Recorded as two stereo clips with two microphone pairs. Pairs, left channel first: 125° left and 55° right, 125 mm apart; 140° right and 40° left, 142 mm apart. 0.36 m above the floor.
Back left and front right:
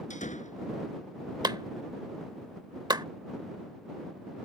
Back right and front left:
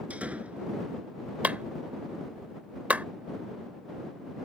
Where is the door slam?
120° left.